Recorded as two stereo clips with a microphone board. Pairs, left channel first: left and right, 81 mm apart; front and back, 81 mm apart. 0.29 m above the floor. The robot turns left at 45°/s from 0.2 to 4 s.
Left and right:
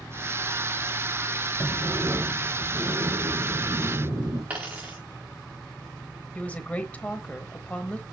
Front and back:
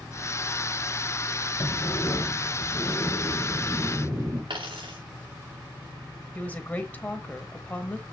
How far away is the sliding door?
About 4.5 m.